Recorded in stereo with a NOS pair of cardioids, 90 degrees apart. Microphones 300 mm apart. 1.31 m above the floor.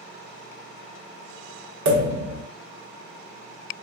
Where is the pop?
65° right, 1.3 m.